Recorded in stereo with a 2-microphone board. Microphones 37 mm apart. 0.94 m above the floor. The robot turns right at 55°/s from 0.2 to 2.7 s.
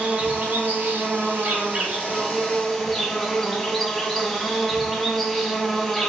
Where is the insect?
125° right, 1.4 m; by 6.1 s 10° left, 1.4 m.